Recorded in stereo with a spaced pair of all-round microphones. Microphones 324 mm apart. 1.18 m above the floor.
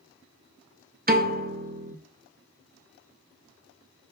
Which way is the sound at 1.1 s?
30° right (ahead or behind).